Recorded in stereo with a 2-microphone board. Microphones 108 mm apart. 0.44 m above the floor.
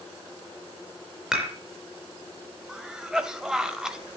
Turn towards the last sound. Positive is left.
turn(degrees=-5)  # may be behind; listen again after turning